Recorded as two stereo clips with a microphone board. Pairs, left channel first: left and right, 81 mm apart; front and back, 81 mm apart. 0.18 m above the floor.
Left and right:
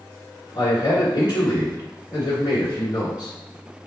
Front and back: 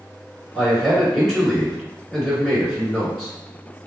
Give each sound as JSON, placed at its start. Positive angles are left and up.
{"t": 0.5, "sound": "a man speaking", "azimuth_deg": 95, "distance_m": 1.9}